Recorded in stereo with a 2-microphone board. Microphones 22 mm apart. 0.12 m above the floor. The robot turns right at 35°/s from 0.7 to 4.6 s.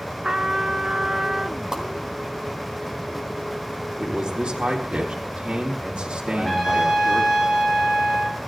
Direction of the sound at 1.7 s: 25° right (ahead or behind).